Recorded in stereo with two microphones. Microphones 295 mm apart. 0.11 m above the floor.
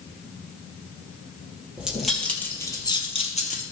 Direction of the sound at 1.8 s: 5° right (ahead or behind).